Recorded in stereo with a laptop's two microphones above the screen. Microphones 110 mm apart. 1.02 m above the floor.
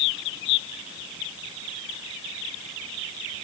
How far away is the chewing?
No chewing in this recording.